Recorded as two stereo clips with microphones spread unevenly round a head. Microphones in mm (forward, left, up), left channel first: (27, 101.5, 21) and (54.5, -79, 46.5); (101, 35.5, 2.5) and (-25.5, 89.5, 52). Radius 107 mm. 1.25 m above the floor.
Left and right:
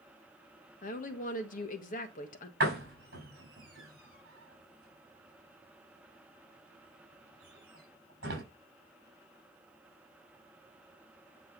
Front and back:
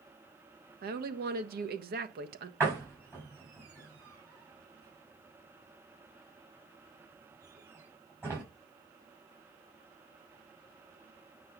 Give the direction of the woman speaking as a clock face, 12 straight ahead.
7 o'clock.